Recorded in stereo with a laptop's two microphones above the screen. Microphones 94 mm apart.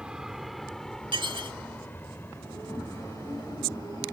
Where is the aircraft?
10° right (ahead or behind); by 4.1 s 35° left (ahead or behind).